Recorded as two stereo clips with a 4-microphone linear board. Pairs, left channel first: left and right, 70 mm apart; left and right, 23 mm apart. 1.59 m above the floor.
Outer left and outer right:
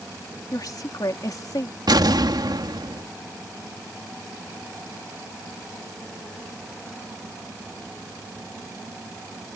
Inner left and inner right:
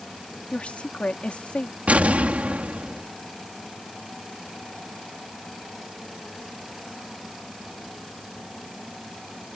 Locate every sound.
0.5 s a woman speaking: 60° left (ahead or behind)
1.9 s an explosion: 80° right